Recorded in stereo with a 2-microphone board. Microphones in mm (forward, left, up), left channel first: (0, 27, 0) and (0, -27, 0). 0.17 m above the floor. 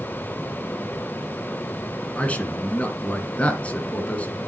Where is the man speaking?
25° left (ahead or behind), 1.9 m.